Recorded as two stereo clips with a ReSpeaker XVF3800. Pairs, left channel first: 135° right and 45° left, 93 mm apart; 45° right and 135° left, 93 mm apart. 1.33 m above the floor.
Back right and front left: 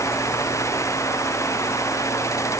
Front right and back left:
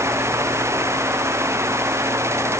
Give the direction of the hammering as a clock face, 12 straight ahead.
I don't hear hammering.